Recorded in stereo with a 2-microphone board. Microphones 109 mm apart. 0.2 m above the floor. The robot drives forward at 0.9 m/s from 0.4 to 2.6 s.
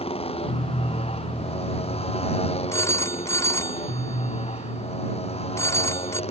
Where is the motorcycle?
65° left (ahead or behind); by 6.3 s 70° left (ahead or behind).